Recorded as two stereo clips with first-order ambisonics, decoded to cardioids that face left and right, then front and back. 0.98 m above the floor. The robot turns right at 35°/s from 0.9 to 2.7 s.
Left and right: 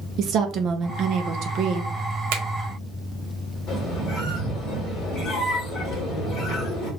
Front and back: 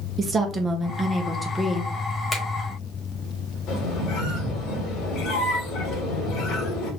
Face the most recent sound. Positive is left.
turn(degrees=35)